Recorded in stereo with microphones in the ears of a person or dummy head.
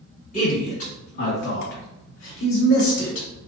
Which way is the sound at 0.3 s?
45° left (ahead or behind).